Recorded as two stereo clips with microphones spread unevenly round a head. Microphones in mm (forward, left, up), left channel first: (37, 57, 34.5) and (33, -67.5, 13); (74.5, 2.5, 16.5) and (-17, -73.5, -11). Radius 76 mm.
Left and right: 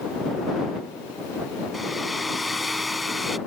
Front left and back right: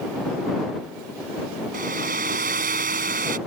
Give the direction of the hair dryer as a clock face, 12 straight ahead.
6 o'clock.